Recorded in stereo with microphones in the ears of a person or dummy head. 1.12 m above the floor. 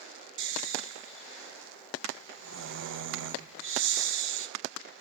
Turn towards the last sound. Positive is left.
turn(degrees=-60)  # may be behind; listen again after turning